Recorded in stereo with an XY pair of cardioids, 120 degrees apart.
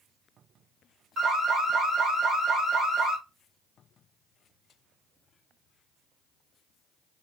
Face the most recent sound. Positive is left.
turn(degrees=-45)